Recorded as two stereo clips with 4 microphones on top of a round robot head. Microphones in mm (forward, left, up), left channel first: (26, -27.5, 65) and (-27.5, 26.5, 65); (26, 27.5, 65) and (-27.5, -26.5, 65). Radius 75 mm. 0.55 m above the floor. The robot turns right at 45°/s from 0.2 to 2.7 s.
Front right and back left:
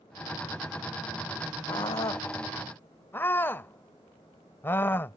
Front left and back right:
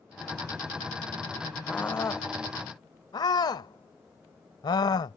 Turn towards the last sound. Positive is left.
turn(degrees=15)